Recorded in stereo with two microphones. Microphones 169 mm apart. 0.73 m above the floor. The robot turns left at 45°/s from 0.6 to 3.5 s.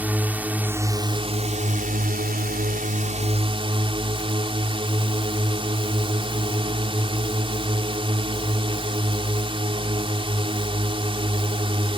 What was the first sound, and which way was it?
A drone, 10° right.